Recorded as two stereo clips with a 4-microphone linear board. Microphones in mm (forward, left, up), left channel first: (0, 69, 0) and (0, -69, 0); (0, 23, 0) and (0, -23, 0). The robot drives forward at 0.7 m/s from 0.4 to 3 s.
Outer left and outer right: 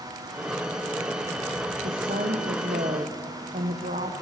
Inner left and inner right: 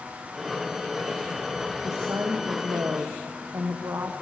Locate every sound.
1.8 s a woman speaking: 75° right (ahead or behind), 1.4 m